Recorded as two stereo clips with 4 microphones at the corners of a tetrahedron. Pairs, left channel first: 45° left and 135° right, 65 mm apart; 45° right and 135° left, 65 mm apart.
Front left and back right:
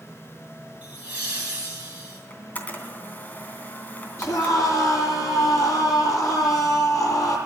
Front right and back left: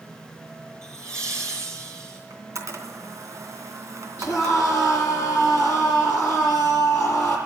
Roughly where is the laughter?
Behind.